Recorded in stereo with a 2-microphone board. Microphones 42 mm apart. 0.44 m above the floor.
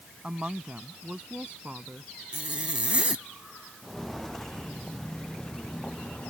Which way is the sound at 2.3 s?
25° right (ahead or behind).